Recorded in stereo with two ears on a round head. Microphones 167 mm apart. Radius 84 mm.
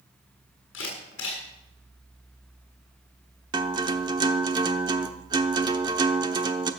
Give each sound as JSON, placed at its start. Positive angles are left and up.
{"t": 0.7, "sound": "a camera shutter", "side_deg": 70, "distance_m": 7.0}
{"t": 3.5, "sound": "a guitar", "side_deg": -25, "distance_m": 1.0}